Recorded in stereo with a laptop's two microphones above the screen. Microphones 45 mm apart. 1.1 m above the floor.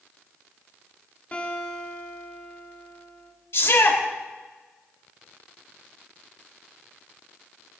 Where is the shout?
60° left (ahead or behind), 3 m.